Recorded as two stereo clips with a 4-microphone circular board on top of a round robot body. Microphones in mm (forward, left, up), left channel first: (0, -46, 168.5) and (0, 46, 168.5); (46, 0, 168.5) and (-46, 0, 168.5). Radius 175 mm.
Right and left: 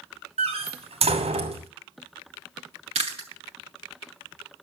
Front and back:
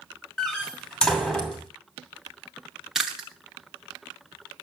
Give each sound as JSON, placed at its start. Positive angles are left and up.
{"t": 0.4, "sound": "a door slam", "azimuth_deg": 80, "distance_m": 2.5}
{"t": 3.0, "sound": "chewing", "azimuth_deg": 95, "distance_m": 0.7}